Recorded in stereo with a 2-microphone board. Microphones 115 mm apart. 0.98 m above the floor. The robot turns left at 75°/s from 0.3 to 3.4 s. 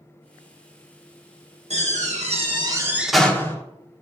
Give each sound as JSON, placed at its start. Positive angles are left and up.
{"t": 1.7, "sound": "a door slam", "azimuth_deg": -75, "distance_m": 1.3}